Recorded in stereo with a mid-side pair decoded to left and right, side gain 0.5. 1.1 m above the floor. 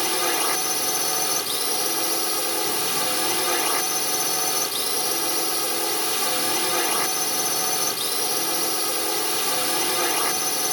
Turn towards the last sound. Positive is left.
turn(degrees=5)